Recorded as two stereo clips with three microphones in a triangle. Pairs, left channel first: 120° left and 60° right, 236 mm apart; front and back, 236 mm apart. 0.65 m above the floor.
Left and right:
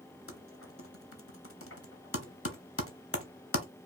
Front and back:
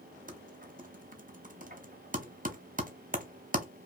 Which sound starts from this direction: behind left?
Typing on a keyboard, at 0.3 s.